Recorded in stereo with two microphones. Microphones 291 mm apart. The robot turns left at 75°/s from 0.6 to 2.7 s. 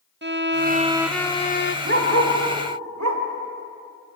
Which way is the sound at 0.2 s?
140° right.